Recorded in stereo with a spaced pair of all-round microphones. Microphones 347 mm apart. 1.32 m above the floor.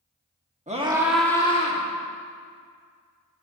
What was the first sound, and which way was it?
A scream, 20° right (ahead or behind).